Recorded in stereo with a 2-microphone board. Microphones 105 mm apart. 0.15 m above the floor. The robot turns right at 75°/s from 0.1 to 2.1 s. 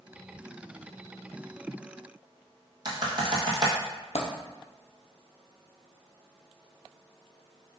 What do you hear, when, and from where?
2.9 s typing on a keyboard: 40° right (ahead or behind), 1.4 m
4.2 s a dropped coin: 80° left, 0.9 m